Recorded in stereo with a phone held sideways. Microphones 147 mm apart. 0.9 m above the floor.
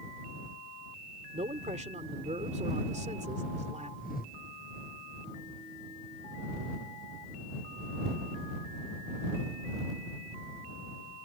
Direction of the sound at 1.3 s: 50° right (ahead or behind).